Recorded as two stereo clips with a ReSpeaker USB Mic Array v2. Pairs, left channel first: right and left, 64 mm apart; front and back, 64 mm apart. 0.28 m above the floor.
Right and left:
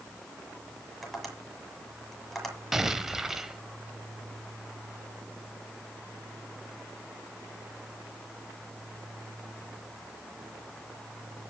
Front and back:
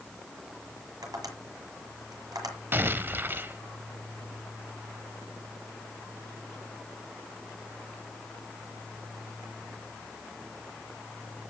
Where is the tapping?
175° right, 7 m.